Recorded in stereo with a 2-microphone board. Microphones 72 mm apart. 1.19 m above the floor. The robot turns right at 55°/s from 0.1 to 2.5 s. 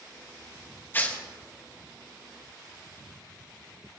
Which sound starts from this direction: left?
Tearing paper, at 0.9 s.